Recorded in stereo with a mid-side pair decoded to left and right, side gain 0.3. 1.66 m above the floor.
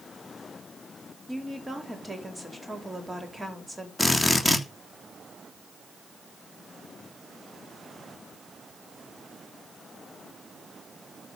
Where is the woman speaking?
15° right, 4.5 m.